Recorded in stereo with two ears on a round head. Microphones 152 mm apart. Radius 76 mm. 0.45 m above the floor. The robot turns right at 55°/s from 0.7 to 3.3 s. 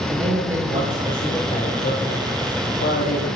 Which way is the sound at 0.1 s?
15° right.